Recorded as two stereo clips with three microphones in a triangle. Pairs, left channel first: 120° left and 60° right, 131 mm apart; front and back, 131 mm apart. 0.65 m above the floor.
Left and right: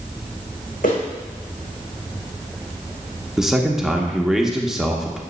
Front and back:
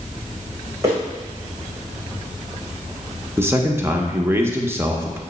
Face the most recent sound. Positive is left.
turn(degrees=-140)